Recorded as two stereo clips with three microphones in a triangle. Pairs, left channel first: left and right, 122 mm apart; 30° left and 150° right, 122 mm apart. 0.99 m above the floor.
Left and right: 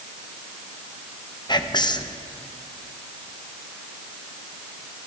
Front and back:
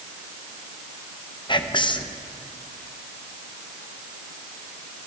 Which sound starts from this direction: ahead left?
Whispering, at 1.5 s.